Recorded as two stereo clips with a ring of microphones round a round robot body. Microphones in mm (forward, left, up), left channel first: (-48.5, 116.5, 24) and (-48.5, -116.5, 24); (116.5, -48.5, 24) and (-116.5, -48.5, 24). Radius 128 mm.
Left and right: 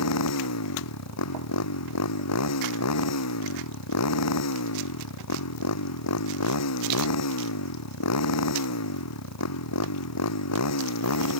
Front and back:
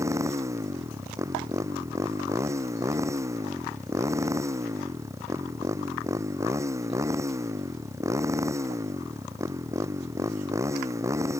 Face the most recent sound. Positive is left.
turn(degrees=100)